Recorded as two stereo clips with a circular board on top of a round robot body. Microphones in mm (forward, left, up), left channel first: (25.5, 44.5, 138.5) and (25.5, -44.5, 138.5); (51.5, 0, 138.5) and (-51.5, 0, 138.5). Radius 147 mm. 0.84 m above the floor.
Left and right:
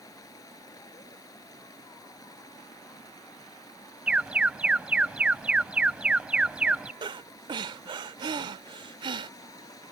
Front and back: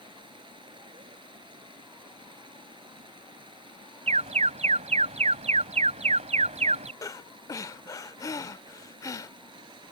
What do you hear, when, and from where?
0.0 s running water: 140° left
4.1 s an alarm: 170° right
7.0 s breathing: 60° right